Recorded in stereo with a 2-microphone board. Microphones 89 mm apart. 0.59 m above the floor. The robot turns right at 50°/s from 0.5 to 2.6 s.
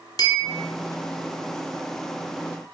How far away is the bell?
About 1.1 m.